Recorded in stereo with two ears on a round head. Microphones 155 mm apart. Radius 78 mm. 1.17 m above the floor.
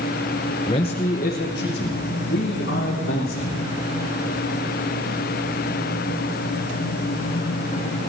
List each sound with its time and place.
0.7 s a man speaking: 25° left (ahead or behind), 0.9 m; by 3.6 s 75° left (ahead or behind), 4 m